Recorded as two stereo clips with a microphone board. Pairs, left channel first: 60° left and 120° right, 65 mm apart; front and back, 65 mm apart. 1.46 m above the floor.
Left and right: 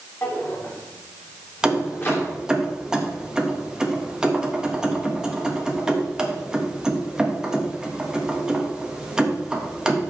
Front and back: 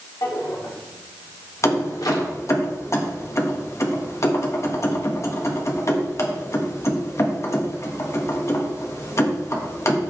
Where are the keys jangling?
40° right, 1.4 m.